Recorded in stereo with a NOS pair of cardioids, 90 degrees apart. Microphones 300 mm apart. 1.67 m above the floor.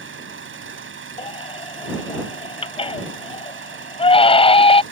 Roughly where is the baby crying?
Ahead.